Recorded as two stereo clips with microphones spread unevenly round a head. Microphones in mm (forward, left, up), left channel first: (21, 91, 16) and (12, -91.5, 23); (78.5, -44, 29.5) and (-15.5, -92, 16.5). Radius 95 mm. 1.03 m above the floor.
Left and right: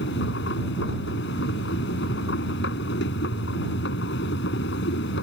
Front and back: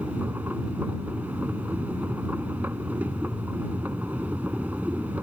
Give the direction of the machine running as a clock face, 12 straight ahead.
8 o'clock.